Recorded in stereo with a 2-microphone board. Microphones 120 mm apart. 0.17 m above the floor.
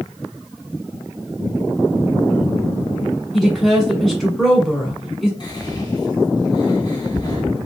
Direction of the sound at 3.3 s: Centre (ahead or behind).